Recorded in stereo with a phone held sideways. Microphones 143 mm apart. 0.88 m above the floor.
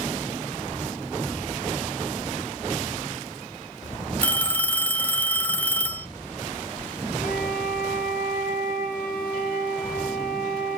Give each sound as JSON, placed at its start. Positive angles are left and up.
{"t": 4.2, "sound": "a phone ringing", "side_deg": 15, "distance_m": 1.2}
{"t": 7.2, "sound": "a flute", "side_deg": 80, "distance_m": 4.5}